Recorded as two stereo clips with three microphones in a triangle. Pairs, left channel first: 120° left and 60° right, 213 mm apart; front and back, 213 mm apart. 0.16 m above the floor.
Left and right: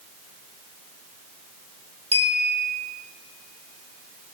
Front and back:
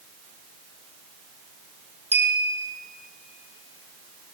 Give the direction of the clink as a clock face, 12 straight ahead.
4 o'clock.